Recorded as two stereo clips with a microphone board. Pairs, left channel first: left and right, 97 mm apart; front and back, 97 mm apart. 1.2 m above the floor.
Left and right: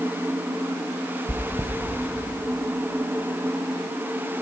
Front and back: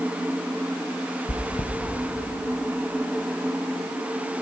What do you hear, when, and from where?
1.3 s chewing: 30° right, 0.7 m